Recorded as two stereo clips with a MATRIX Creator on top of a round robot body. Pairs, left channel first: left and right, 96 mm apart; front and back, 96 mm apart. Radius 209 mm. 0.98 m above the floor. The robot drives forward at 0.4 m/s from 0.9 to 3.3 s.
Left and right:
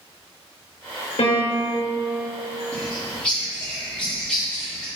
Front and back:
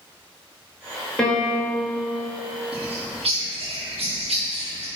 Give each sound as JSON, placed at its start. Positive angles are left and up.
{"t": 1.2, "sound": "a piano", "azimuth_deg": 85, "distance_m": 2.5}
{"t": 2.7, "sound": "a bird", "azimuth_deg": 170, "distance_m": 2.0}